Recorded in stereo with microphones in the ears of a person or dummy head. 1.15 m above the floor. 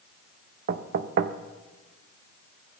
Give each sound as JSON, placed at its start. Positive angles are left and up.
{"t": 0.7, "sound": "knocking", "side_deg": -45, "distance_m": 0.7}